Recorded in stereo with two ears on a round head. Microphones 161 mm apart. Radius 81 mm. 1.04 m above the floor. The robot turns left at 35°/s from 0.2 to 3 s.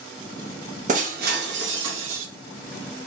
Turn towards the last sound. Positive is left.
turn(degrees=-115)